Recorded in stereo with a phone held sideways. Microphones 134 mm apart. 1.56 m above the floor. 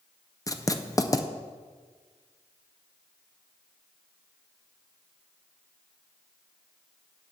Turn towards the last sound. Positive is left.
turn(degrees=25)  # may be behind; listen again after turning